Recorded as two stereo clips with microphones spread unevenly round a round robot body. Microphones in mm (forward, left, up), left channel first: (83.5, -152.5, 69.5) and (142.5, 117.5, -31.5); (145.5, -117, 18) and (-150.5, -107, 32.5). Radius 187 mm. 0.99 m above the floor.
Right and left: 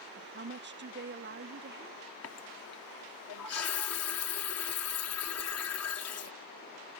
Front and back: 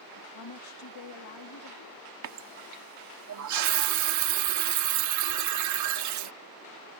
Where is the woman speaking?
25° left.